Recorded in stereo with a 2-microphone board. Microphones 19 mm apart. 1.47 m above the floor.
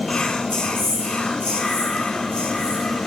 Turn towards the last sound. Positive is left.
turn(degrees=70)  # may be behind; listen again after turning